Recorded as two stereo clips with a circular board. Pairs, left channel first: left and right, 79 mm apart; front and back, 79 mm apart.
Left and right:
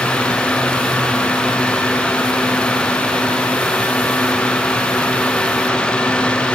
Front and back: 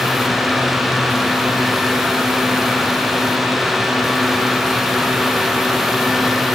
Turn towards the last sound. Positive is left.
No sound to turn to.